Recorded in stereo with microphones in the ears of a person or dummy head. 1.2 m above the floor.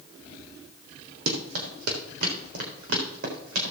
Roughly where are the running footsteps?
Right.